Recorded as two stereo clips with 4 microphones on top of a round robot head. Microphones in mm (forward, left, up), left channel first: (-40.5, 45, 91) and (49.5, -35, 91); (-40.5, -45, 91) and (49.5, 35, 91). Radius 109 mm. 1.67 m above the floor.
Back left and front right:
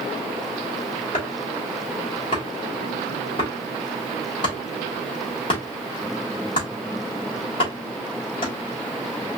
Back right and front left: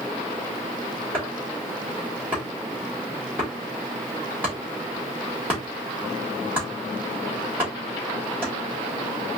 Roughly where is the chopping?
Behind left.